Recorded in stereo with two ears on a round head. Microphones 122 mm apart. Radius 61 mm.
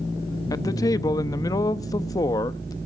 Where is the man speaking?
25° left (ahead or behind), 0.8 m.